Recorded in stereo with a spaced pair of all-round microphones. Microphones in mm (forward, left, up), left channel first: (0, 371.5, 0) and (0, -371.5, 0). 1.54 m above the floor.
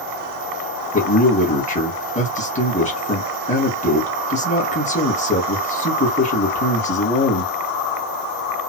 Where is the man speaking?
10° left (ahead or behind), 2.0 m.